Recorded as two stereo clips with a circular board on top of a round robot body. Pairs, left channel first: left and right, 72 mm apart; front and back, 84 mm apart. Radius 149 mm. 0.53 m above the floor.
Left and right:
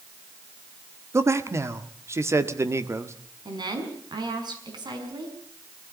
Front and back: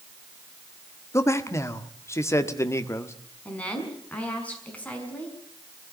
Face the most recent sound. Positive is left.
turn(degrees=-75)